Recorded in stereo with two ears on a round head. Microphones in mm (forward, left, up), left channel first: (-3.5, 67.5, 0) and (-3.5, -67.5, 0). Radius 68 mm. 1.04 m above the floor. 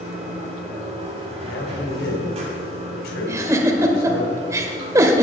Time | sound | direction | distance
0.0 | running water | 40° right (ahead or behind) | 5 m
1.5 | a man speaking | 75° left (ahead or behind) | 3.5 m
3.3 | a giggle | 20° right (ahead or behind) | 1.4 m